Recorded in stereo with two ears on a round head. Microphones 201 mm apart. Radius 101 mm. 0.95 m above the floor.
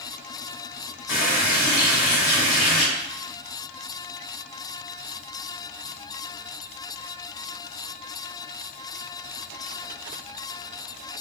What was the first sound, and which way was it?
A running tap, 70° left (ahead or behind).